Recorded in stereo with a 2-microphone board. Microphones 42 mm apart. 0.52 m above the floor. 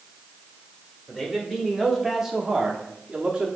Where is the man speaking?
5° left (ahead or behind), 1.8 m; by 3.5 s 25° right (ahead or behind), 1.0 m.